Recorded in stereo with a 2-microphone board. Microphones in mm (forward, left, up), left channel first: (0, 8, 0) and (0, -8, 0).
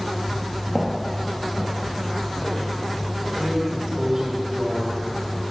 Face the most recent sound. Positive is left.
turn(degrees=-35)  # may be behind; listen again after turning